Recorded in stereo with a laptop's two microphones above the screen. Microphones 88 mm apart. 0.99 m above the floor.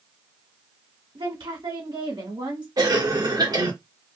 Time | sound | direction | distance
1.1 | a woman speaking | 75° right (ahead or behind) | 2.5 m
2.8 | a cough | 50° right (ahead or behind) | 1.7 m